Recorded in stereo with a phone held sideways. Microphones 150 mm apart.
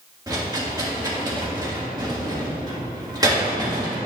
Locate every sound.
0.3 s a rattle: 25° right (ahead or behind), 1.7 m